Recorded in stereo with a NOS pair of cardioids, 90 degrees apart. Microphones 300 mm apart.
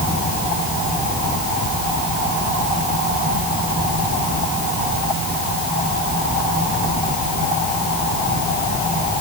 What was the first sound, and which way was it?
Only background noise.